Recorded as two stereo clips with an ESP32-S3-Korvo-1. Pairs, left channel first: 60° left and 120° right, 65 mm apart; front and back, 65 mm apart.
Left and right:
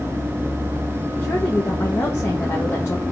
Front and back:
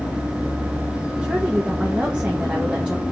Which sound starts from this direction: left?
A woman speaking, at 1.2 s.